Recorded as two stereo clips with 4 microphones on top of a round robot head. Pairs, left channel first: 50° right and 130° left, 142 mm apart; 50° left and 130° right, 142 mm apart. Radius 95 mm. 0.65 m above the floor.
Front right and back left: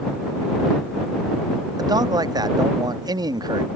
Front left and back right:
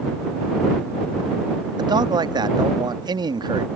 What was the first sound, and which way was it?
A man speaking, straight behind.